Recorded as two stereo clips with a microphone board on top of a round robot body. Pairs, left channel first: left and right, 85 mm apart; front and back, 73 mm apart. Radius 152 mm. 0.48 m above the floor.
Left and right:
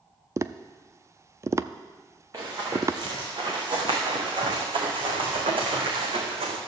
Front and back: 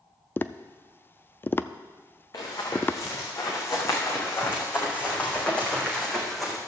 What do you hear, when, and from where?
0.4 s tapping: 50° right, 0.6 m
2.3 s running footsteps: 40° right, 3.5 m; by 6.6 s 90° right, 2.5 m